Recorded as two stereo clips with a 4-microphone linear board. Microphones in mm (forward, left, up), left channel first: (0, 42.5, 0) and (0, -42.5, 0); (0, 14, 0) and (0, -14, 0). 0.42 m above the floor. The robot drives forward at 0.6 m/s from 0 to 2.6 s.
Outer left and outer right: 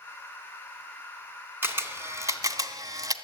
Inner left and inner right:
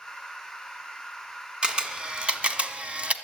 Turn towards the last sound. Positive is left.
turn(degrees=-45)  # may be behind; listen again after turning